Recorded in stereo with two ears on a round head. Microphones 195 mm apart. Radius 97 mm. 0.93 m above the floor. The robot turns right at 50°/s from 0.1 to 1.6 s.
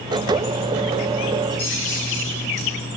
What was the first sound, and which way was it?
Keys jangling, 80° left.